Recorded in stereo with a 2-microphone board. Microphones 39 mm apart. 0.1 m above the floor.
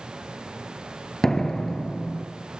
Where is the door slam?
10° left (ahead or behind), 1.3 m.